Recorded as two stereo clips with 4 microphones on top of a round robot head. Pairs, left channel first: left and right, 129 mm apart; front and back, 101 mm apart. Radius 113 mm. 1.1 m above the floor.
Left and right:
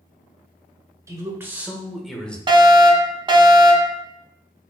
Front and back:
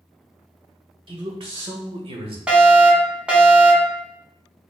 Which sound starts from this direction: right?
A fire alarm, at 2.5 s.